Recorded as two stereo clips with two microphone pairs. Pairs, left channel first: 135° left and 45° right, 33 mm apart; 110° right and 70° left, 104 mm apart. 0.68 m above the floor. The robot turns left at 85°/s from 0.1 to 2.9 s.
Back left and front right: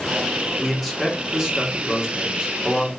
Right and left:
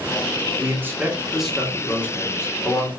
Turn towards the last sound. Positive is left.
turn(degrees=-135)